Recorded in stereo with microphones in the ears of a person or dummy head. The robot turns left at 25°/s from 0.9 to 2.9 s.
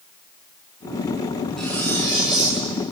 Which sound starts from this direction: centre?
Cutlery clinking, at 1.6 s.